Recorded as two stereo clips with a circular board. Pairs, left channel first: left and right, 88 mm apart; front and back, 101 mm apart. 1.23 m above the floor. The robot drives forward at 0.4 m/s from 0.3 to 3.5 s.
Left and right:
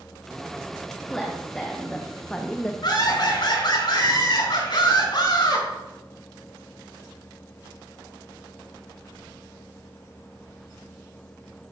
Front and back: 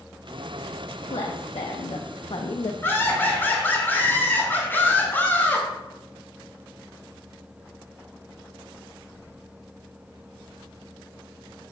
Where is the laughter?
65° left, 4.5 m; by 5.7 s 70° left, 4.5 m.